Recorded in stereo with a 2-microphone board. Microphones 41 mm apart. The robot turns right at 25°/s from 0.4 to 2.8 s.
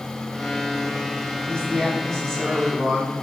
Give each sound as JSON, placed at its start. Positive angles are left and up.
{"t": 1.5, "sound": "a man speaking", "azimuth_deg": 145, "distance_m": 3.0}